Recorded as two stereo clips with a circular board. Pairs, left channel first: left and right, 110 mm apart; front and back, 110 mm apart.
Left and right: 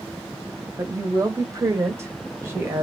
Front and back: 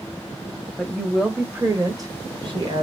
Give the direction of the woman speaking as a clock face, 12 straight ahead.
2 o'clock.